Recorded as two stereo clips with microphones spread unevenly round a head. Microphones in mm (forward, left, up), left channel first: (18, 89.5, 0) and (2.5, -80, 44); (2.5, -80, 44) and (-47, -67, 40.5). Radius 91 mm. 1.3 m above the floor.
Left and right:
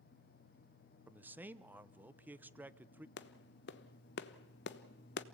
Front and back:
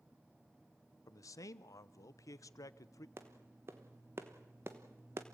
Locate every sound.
1.1 s a man speaking: 10° right, 0.8 m
3.2 s a clap: 110° left, 1.0 m